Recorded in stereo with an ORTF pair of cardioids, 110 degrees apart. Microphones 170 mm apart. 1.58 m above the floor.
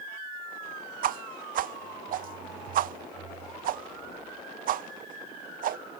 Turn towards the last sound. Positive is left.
turn(degrees=-60)